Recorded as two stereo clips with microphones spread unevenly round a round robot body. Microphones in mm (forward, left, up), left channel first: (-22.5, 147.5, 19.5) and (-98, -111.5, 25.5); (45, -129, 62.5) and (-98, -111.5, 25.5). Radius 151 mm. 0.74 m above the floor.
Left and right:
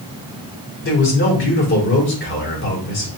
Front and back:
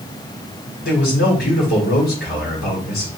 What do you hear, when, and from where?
0.8 s a man speaking: 25° left, 2 m